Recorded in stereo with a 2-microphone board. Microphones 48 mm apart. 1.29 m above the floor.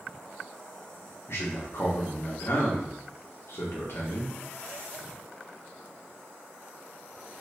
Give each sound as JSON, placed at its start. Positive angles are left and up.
{"t": 1.3, "sound": "a man speaking", "side_deg": 60, "distance_m": 1.0}